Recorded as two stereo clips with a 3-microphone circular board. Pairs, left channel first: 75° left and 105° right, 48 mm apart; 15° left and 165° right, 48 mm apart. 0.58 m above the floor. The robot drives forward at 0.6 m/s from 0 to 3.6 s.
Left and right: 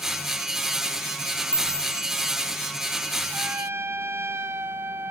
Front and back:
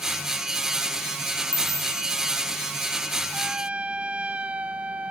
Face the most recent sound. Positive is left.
turn(degrees=-105)